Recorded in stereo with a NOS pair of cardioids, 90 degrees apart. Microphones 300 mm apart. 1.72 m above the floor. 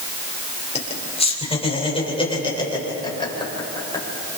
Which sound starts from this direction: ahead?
Laughter, at 0.8 s.